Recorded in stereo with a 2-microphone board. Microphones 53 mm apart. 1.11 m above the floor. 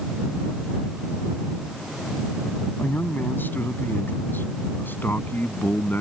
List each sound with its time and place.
2.8 s a man speaking: 40° left (ahead or behind)